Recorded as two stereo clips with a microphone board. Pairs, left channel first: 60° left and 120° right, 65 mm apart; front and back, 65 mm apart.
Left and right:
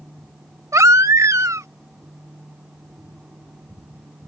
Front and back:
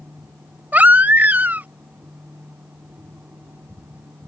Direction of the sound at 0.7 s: 125° right.